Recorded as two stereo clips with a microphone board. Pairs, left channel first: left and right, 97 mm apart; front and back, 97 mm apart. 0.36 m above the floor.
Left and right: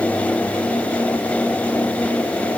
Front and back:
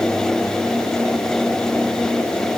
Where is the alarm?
I don't hear an alarm.